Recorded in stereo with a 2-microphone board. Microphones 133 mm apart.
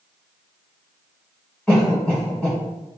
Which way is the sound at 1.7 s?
5° left (ahead or behind).